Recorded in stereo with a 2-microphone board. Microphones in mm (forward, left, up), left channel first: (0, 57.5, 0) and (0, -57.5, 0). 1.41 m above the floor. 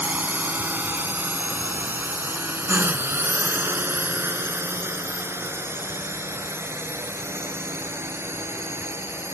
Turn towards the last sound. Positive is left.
turn(degrees=-20)  # may be behind; listen again after turning